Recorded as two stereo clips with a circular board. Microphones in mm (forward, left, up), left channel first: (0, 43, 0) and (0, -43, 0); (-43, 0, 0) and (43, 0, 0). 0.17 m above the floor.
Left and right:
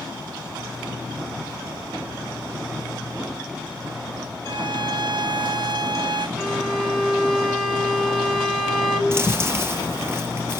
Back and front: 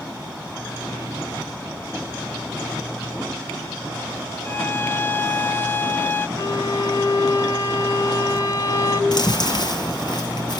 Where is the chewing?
150° right, 2.5 m.